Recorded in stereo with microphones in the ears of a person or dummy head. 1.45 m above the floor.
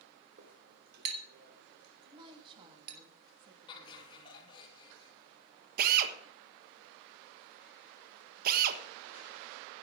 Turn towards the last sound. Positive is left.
turn(degrees=-50)  # may be behind; listen again after turning